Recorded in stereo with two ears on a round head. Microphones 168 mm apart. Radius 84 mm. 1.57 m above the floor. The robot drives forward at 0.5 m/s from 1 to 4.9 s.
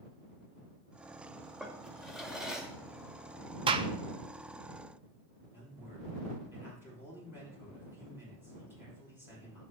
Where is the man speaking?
15° right (ahead or behind), 6 m.